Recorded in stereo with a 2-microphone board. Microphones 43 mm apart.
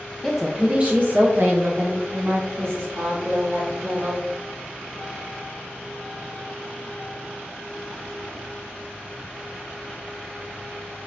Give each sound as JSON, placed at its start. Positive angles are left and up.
{"t": 0.2, "sound": "a woman speaking", "side_deg": 10, "distance_m": 0.5}